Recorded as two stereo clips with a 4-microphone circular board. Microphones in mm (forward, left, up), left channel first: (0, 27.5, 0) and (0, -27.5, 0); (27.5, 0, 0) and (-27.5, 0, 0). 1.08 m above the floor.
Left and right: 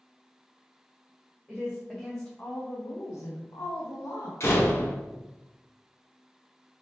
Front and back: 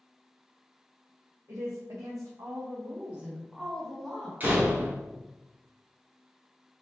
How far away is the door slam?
About 1.0 m.